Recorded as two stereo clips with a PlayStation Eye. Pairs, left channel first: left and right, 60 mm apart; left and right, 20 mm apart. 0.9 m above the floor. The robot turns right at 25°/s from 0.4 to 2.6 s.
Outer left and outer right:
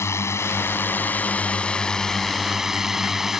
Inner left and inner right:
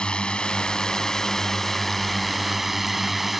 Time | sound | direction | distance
0.0 | a drone | 130° left | ?